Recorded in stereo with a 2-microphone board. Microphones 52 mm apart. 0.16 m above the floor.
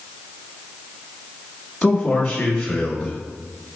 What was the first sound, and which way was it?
A man speaking, 15° left (ahead or behind).